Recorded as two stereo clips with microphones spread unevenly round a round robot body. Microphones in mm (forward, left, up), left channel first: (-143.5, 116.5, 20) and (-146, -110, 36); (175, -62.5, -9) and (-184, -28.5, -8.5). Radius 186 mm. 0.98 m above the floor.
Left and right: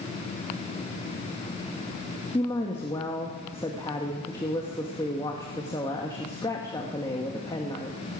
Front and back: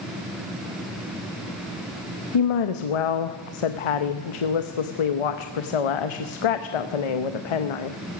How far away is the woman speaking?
About 0.8 m.